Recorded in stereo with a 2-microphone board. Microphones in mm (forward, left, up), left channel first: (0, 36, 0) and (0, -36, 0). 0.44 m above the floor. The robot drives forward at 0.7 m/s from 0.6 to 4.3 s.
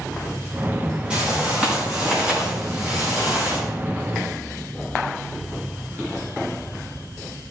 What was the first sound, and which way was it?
A whoosh, 15° right (ahead or behind).